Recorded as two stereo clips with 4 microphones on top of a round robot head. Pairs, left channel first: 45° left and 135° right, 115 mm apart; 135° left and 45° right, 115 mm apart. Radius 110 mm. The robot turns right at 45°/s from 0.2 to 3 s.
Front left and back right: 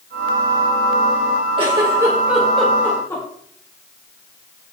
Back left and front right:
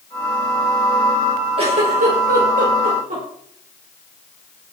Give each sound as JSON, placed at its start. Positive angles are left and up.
{"t": 1.6, "sound": "a giggle", "azimuth_deg": -85, "distance_m": 4.5}